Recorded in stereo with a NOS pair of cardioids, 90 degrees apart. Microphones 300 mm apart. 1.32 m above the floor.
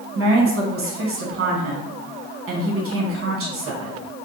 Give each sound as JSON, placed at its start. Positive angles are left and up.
{"t": 0.1, "sound": "a woman speaking", "azimuth_deg": -45, "distance_m": 1.1}